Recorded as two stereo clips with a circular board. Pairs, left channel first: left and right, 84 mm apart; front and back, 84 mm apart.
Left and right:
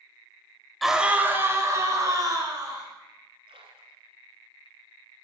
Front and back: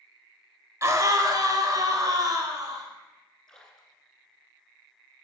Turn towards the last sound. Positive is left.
turn(degrees=-85)